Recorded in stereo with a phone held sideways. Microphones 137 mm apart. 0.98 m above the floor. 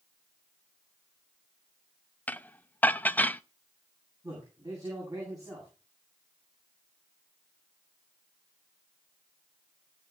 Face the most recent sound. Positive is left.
turn(degrees=-25)  # may be behind; listen again after turning